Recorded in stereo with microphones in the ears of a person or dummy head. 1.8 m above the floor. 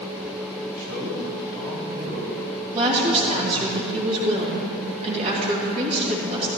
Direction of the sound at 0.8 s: 45° right (ahead or behind).